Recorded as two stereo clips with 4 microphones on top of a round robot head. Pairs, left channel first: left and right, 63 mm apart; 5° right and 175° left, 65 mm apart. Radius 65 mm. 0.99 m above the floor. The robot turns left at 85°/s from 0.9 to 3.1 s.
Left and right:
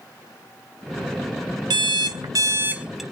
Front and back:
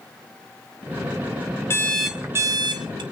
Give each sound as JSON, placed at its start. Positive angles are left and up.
{"t": 1.7, "sound": "an alarm clock", "azimuth_deg": -65, "distance_m": 0.7}